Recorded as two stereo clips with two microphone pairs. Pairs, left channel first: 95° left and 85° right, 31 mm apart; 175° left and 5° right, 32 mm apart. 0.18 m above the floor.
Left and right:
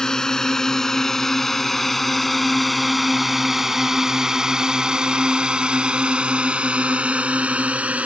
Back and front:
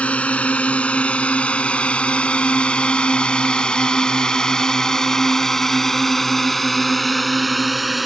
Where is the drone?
155° left; by 8.1 s 95° right.